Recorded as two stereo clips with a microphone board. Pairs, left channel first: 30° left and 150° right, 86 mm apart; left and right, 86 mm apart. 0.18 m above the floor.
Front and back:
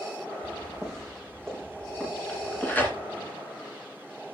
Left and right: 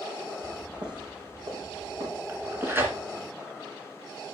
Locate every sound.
0.4 s footsteps: 60° right, 4.5 m; by 3.3 s 40° right, 4.5 m
2.3 s tearing paper: 30° right, 2.0 m